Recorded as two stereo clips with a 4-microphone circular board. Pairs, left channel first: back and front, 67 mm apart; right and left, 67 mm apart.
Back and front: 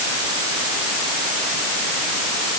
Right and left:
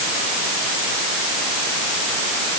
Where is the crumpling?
I don't hear crumpling.